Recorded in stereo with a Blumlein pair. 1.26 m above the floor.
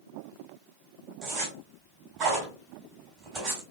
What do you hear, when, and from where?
1.2 s a zipper: 30° right, 2.5 m